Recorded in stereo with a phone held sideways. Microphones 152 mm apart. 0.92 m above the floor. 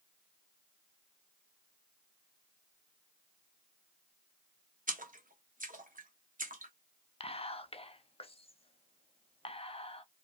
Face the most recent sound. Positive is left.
turn(degrees=40)  # may be behind; listen again after turning